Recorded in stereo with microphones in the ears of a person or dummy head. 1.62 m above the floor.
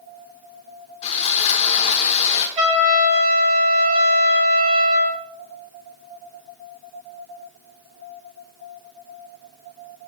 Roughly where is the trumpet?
Right.